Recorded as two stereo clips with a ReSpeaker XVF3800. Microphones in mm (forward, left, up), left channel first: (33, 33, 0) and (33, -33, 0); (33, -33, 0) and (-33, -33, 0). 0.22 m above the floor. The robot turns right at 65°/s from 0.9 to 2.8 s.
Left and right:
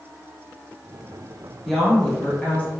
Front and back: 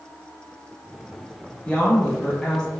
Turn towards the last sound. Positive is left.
turn(degrees=80)